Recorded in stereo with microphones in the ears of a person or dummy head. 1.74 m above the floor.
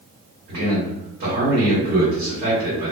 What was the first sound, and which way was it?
A man speaking, 50° right (ahead or behind).